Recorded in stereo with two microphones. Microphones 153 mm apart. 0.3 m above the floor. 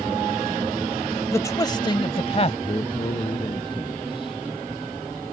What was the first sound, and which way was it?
A man speaking, 20° left (ahead or behind).